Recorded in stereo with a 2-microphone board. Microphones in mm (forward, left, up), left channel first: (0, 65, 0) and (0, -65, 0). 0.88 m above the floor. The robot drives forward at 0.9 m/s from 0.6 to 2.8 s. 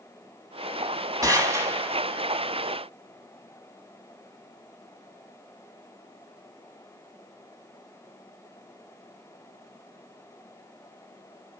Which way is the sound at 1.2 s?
25° right (ahead or behind).